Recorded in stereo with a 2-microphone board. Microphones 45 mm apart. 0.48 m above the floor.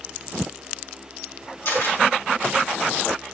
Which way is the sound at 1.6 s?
60° left (ahead or behind).